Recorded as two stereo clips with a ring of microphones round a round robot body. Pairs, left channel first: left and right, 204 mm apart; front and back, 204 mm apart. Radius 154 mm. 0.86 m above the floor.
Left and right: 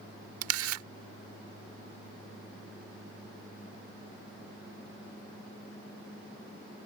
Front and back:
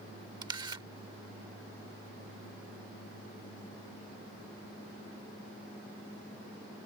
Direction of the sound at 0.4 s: 105° right.